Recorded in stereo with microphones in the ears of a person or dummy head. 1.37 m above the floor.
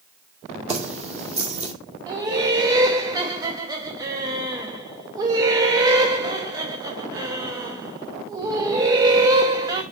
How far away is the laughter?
About 0.9 m.